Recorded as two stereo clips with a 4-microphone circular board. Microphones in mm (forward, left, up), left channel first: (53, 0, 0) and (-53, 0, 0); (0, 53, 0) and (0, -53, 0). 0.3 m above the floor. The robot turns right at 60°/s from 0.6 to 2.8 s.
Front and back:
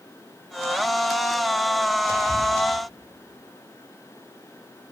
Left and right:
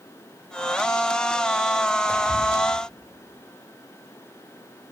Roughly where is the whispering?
Behind left.